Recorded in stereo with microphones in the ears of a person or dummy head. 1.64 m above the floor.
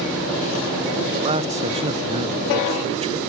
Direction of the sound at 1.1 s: 35° right (ahead or behind).